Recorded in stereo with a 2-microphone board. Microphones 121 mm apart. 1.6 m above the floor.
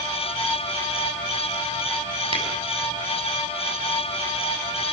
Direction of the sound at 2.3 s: 45° right (ahead or behind).